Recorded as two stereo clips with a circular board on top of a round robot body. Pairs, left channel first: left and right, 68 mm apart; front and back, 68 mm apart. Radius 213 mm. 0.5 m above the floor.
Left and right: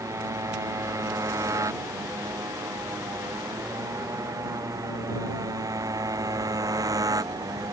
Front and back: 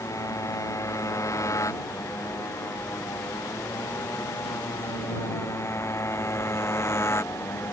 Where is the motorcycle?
45° right; by 7.7 s 55° right.